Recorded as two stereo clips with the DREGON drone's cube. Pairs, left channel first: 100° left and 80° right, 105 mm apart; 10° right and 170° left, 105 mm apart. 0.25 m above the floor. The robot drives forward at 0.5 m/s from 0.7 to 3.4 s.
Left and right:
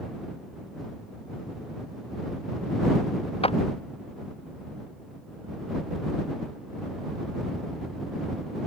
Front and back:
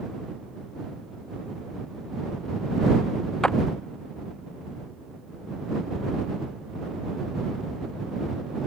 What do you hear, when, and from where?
3.4 s a clap: 70° left